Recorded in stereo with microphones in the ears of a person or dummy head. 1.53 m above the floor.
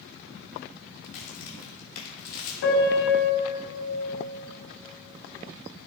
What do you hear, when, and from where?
1.0 s a crack: 55° left (ahead or behind), 3 m
2.6 s a piano: 65° left (ahead or behind), 2.5 m